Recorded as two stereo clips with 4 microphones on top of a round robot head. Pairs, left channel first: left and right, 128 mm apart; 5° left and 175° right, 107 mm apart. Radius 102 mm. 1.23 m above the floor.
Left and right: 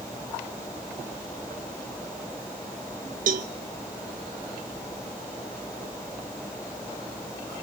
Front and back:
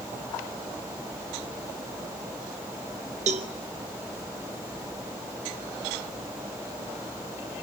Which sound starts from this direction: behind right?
A cowbell, at 3.3 s.